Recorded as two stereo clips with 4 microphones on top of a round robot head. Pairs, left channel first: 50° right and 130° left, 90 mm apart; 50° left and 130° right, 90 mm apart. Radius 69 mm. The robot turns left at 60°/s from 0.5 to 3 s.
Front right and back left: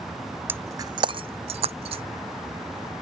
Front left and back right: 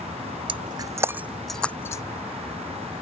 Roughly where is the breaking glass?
Behind.